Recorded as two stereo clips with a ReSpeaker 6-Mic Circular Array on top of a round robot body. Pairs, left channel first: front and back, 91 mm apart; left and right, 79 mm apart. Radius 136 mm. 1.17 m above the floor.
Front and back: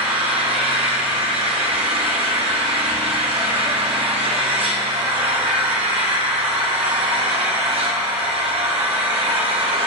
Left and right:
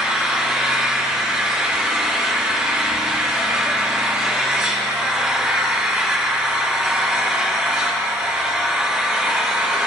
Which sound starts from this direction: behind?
An engine running, at 0.0 s.